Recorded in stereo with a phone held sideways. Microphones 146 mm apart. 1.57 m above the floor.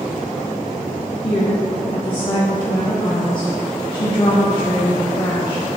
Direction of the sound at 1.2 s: 35° left (ahead or behind).